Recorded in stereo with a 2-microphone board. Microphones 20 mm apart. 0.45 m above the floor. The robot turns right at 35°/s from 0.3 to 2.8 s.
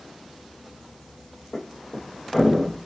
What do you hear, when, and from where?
1.5 s a thud: 35° left (ahead or behind), 9.5 m; by 2.8 s 5° right (ahead or behind), 9.5 m